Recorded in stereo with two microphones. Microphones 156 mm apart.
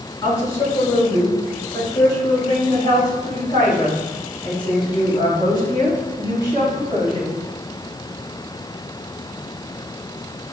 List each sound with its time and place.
0.2 s a woman speaking: 20° left (ahead or behind), 3.5 m; by 7.3 s 35° left (ahead or behind), 7.5 m